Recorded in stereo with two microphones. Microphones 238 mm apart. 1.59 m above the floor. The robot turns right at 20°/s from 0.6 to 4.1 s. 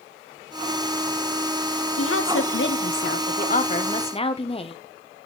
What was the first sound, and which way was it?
A woman speaking, 115° left.